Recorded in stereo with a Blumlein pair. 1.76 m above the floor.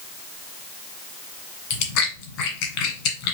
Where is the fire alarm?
I don't hear a fire alarm.